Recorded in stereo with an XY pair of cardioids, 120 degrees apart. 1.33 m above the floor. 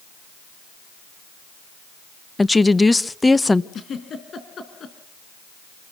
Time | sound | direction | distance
2.4 | a woman speaking | 10° left | 0.9 m
3.7 | a giggle | 45° left | 4 m